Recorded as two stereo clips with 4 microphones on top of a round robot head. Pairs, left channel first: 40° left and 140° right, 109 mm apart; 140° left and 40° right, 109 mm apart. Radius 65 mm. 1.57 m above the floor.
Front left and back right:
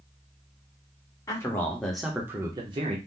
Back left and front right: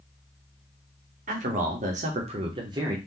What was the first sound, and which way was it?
A man speaking, 25° right.